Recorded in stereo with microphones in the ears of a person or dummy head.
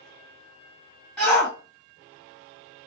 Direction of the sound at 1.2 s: 5° left (ahead or behind).